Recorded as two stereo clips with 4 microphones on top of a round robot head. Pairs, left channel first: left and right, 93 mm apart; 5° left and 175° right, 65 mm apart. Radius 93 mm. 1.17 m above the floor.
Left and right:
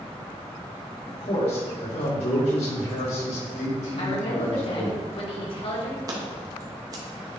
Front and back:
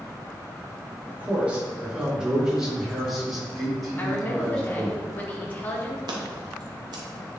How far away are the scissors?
About 1.1 m.